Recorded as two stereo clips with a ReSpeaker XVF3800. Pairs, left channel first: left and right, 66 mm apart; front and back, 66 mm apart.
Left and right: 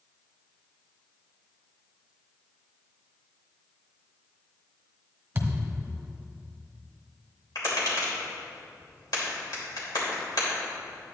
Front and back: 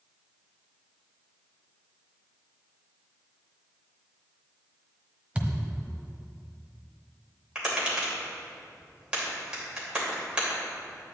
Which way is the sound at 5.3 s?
120° right.